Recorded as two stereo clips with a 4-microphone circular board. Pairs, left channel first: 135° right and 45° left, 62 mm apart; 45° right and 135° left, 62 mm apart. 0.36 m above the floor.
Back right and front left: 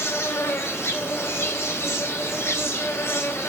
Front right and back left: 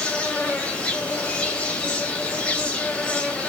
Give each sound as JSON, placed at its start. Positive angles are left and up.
{"t": 0.0, "sound": "an insect", "azimuth_deg": -110, "distance_m": 0.8}